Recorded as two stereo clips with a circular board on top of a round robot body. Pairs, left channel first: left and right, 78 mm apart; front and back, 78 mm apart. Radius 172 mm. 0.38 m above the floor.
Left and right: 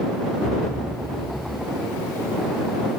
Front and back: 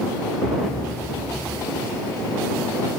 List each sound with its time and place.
0.4 s a thud: 40° right